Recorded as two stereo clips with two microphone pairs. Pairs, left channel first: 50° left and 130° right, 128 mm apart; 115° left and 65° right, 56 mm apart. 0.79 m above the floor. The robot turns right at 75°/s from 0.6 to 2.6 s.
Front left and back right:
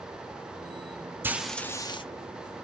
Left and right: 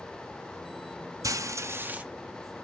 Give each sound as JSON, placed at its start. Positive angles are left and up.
{"t": 1.2, "sound": "frying", "azimuth_deg": -55, "distance_m": 0.6}